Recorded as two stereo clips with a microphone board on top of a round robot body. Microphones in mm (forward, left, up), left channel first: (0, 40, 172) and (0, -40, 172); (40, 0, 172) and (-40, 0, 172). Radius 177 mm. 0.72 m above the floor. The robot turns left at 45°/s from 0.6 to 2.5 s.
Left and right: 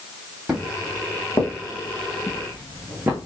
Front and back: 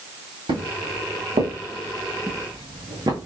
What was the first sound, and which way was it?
Footsteps, 175° right.